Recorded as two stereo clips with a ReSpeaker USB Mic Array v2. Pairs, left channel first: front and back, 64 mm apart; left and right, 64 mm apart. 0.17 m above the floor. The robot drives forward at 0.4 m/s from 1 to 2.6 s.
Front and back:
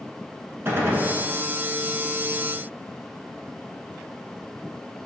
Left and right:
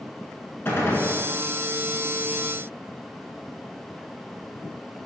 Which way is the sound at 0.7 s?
135° left.